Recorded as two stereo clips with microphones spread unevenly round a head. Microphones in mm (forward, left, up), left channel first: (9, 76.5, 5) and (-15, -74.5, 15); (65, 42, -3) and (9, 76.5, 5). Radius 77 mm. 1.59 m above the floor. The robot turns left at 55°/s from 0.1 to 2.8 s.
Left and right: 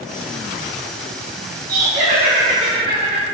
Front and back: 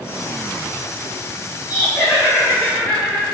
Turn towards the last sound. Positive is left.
turn(degrees=-110)